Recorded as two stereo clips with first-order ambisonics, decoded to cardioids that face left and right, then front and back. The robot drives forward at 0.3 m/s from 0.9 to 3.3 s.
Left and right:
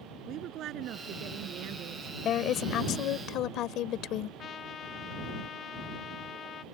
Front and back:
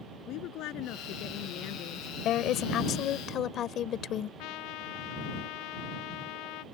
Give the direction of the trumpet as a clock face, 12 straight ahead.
11 o'clock.